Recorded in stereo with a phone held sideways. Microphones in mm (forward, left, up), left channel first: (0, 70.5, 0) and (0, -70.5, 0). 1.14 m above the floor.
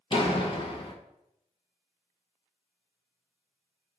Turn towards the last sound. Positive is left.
turn(degrees=40)  # may be behind; listen again after turning